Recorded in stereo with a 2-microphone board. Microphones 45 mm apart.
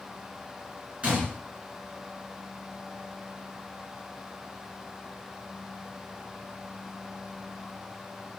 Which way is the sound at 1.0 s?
25° right (ahead or behind).